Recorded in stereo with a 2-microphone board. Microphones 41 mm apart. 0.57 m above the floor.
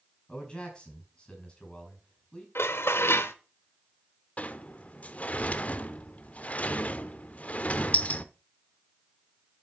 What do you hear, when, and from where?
0.3 s a man speaking: 25° left (ahead or behind), 6 m
2.5 s dishes clattering: 70° left (ahead or behind), 1.0 m
4.4 s a sliding door: 35° left (ahead or behind), 0.7 m